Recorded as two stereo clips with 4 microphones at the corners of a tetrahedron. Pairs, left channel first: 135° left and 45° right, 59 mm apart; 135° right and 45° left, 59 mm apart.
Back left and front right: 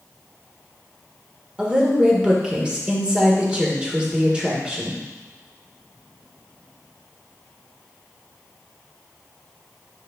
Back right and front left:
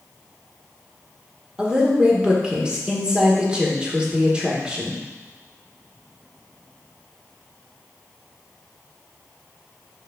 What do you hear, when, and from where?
1.6 s a woman speaking: straight ahead, 1.3 m